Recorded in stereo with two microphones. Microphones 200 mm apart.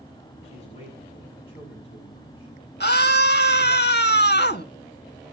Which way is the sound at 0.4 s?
30° left (ahead or behind).